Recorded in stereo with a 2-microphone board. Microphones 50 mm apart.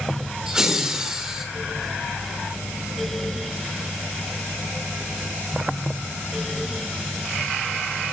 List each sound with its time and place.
0.5 s laughter: 15° right (ahead or behind), 1.0 m